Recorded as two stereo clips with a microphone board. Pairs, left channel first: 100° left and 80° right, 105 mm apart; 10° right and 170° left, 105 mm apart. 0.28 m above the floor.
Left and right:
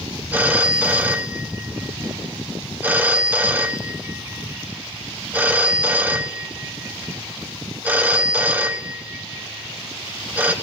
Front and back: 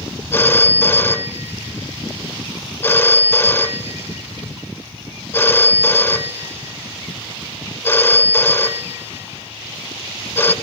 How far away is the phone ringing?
About 0.8 m.